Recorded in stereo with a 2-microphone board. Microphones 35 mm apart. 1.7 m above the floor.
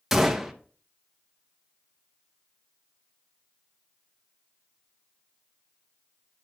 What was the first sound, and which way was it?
A gunshot, 10° right (ahead or behind).